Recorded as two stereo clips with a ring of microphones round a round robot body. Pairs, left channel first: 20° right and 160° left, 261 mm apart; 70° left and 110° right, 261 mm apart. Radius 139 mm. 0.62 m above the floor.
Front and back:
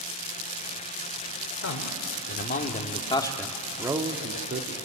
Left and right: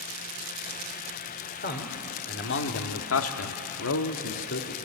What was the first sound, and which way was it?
A man speaking, 15° left.